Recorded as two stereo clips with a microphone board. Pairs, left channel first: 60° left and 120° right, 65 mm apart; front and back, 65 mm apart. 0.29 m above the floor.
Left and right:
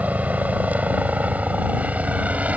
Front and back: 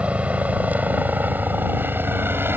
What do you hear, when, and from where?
0.0 s a helicopter: 140° right; by 2.6 s 170° right